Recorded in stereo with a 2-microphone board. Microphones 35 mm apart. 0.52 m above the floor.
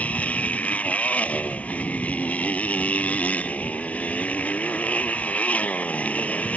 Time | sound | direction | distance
0.0 | a motorcycle | 40° left (ahead or behind) | ?